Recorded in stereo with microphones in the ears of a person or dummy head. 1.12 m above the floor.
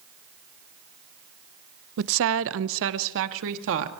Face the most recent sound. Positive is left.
turn(degrees=-70)  # may be behind; listen again after turning